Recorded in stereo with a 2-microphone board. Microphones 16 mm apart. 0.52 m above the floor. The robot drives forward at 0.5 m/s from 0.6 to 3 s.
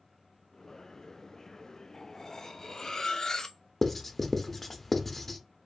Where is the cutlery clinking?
30° left (ahead or behind), 0.6 m; by 3.6 s 40° left (ahead or behind), 0.5 m.